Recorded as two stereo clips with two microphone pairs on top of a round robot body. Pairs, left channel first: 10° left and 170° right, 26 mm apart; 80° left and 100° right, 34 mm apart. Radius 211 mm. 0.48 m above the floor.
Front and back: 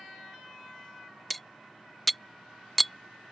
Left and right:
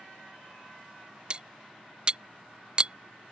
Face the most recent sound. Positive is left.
turn(degrees=-65)